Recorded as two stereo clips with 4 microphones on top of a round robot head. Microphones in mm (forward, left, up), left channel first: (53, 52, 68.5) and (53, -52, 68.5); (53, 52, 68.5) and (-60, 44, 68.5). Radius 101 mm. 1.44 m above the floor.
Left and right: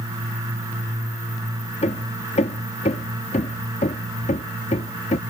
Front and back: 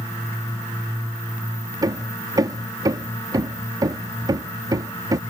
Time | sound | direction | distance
1.8 | hammering | 125° left | ?